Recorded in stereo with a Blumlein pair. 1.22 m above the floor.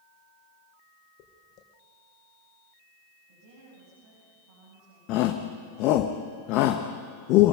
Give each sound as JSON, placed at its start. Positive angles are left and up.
{"t": 1.2, "sound": "footsteps", "azimuth_deg": 35, "distance_m": 4.0}
{"t": 3.3, "sound": "a woman speaking", "azimuth_deg": -50, "distance_m": 9.5}
{"t": 5.1, "sound": "a shout", "azimuth_deg": 40, "distance_m": 1.2}